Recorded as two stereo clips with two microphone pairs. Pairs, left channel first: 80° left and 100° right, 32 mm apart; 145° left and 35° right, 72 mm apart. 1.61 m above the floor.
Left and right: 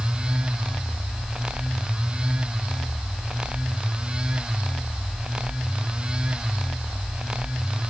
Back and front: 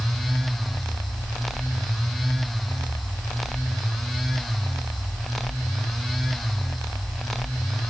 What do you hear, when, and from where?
Only background noise.